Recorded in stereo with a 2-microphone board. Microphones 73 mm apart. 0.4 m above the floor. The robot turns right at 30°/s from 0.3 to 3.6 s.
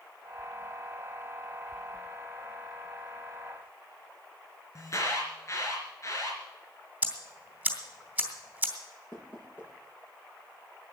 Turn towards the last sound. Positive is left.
turn(degrees=30)  # may be behind; listen again after turning